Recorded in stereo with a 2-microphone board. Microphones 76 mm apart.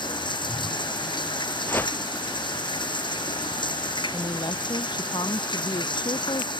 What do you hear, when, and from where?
0.0 s running water: 85° left
1.7 s a whoosh: 25° left (ahead or behind)
4.1 s a woman speaking: 70° left (ahead or behind)